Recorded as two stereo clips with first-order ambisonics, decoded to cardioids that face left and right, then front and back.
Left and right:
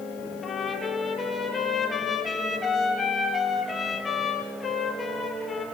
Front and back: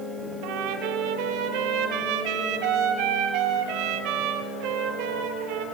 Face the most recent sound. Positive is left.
turn(degrees=165)